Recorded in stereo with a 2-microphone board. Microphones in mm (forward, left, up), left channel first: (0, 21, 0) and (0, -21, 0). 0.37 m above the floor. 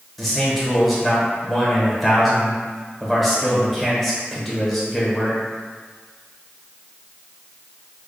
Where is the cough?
I don't hear a cough.